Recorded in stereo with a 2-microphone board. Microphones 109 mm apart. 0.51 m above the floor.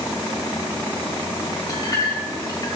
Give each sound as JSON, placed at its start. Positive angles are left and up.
{"t": 1.7, "sound": "a clink", "side_deg": 35, "distance_m": 2.0}